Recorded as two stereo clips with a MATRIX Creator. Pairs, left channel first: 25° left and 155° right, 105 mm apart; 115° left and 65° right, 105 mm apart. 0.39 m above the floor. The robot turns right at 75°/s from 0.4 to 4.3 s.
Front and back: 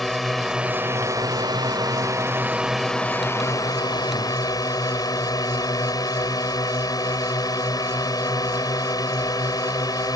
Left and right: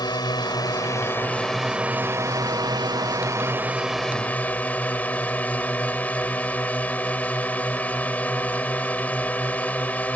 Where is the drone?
110° left; by 10.2 s 45° left.